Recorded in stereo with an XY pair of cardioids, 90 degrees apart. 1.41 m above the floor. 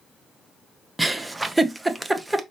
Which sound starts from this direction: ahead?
A giggle, at 1.0 s.